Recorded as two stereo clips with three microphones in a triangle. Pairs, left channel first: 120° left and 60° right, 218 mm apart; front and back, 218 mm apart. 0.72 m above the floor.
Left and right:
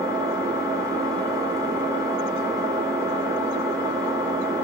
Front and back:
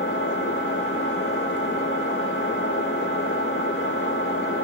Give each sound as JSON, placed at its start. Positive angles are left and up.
{"t": 0.0, "sound": "an engine running", "azimuth_deg": 15, "distance_m": 1.1}